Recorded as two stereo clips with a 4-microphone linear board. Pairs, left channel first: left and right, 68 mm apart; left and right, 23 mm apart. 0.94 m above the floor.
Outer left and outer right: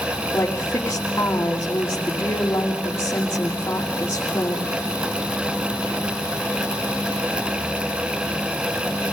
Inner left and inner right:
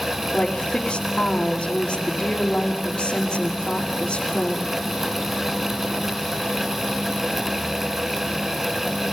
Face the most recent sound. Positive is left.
turn(degrees=45)  # may be behind; listen again after turning